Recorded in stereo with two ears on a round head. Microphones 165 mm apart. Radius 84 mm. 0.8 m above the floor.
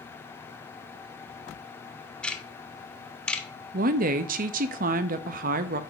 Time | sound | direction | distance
2.2 | ticking | 5° left (ahead or behind) | 0.6 m
3.7 | a woman speaking | 45° right (ahead or behind) | 0.5 m